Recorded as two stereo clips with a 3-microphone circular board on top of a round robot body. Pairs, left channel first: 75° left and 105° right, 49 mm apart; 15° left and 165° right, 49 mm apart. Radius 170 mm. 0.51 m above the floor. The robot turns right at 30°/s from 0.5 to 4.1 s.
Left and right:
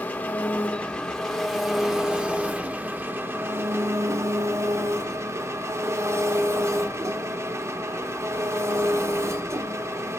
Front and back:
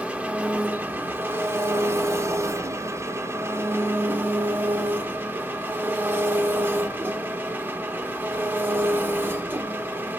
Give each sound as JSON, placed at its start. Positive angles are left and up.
{"t": 0.0, "sound": "an engine running", "azimuth_deg": 135, "distance_m": 1.1}